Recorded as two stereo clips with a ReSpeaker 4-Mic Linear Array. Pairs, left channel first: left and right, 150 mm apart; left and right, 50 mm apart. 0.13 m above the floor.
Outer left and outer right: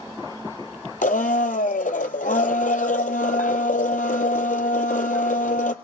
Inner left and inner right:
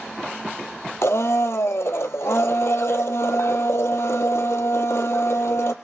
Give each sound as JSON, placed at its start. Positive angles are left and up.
{"t": 1.0, "sound": "a blender", "side_deg": 65, "distance_m": 0.7}